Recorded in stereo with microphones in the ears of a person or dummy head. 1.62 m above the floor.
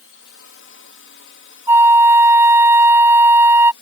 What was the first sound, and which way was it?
A drone, 60° left (ahead or behind).